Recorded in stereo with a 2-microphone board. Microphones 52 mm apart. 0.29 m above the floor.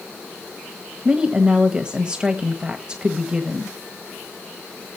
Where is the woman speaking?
15° right (ahead or behind), 1.3 m.